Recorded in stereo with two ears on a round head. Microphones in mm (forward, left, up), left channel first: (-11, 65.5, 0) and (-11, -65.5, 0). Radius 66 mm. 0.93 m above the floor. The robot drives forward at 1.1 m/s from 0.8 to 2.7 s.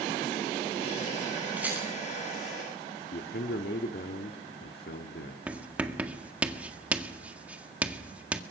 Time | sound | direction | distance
1.6 | a rattle | 10° right (ahead or behind) | 10 m
3.1 | a man speaking | 80° left | 2 m
5.5 | writing | 10° right (ahead or behind) | 1.8 m